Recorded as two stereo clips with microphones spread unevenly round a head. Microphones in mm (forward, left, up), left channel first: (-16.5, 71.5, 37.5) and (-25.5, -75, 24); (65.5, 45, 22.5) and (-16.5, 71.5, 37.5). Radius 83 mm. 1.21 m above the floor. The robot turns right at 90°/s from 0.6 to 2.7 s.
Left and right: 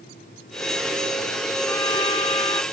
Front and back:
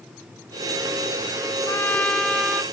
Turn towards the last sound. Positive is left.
turn(degrees=125)